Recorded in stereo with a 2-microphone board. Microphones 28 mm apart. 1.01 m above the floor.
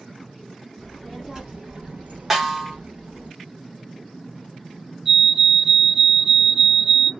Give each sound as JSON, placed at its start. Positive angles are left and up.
{"t": 0.8, "sound": "a child speaking", "side_deg": -5, "distance_m": 1.1}
{"t": 2.3, "sound": "a snare drum", "side_deg": -15, "distance_m": 1.0}
{"t": 5.0, "sound": "a fire alarm", "side_deg": -15, "distance_m": 1.6}